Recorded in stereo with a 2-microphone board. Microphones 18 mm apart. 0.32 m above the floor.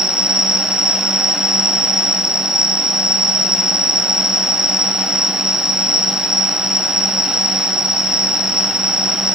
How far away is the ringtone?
I don't hear a ringtone.